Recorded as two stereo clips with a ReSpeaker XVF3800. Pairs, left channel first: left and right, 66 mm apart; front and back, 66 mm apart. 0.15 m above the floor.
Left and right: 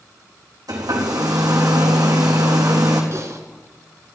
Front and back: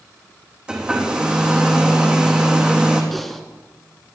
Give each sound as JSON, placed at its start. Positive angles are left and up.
{"t": 0.7, "sound": "a hair dryer", "azimuth_deg": -100, "distance_m": 3.5}
{"t": 3.1, "sound": "typing on a keyboard", "azimuth_deg": -85, "distance_m": 1.7}